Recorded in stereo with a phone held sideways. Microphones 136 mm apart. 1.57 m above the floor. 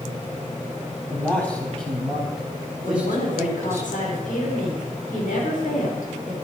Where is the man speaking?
15° left (ahead or behind), 4 m; by 3.8 s 20° right (ahead or behind), 3.5 m.